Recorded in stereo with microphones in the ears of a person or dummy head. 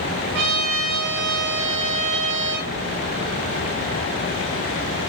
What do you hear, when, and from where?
0.3 s a trumpet: 65° right (ahead or behind), 8.5 m